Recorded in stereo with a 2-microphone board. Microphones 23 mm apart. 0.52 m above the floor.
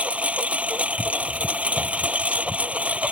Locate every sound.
0.0 s a lawn mower: 75° right (ahead or behind)